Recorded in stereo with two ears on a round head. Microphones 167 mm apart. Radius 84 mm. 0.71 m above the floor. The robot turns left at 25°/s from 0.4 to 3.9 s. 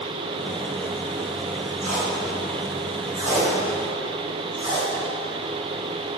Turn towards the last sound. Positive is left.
turn(degrees=-30)  # may be behind; listen again after turning